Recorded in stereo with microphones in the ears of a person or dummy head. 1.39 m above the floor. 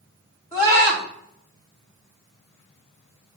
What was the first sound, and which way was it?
A scream, 10° left (ahead or behind).